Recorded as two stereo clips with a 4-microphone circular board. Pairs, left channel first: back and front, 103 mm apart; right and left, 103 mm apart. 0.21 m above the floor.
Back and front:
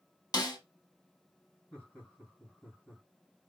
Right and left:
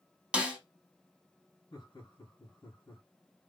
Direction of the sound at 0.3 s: 165° left.